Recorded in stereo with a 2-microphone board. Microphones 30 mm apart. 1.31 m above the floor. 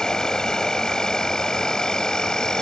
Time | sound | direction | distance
0.0 | an insect | 20° left (ahead or behind) | ?